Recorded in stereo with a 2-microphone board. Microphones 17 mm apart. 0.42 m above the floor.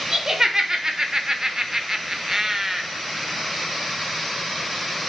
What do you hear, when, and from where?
0.1 s laughter: 30° right (ahead or behind), 1.1 m; by 2.8 s 15° right (ahead or behind), 1.1 m